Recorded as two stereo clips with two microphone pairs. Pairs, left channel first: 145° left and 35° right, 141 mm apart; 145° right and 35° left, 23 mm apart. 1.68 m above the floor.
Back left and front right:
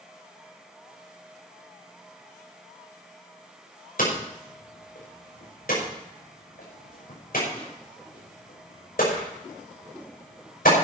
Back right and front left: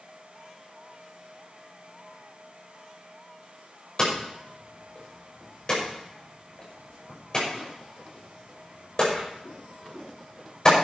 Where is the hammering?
155° left, 6 m.